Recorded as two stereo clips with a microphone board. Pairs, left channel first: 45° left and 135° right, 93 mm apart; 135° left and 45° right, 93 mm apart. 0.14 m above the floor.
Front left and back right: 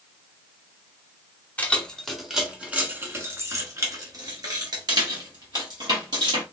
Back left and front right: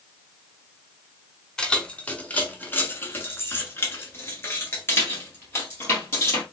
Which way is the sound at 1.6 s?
75° left.